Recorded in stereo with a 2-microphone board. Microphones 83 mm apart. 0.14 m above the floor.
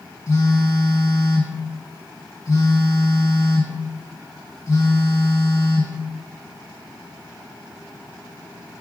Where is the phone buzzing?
40° left (ahead or behind), 2.5 m.